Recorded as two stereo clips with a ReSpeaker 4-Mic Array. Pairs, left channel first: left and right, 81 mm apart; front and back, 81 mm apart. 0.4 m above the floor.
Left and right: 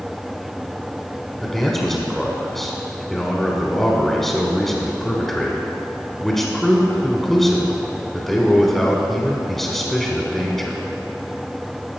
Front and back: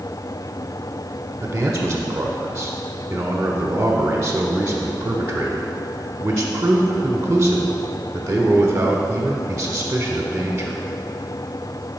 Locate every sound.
1.4 s a man speaking: 175° left, 1.0 m